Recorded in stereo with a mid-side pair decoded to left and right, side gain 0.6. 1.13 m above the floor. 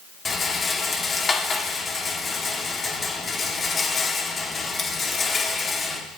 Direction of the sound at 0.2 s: 30° left.